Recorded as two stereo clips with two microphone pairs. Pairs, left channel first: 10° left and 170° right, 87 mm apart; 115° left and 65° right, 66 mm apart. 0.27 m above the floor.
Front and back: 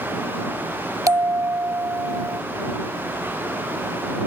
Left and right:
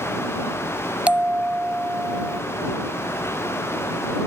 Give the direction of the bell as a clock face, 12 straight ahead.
4 o'clock.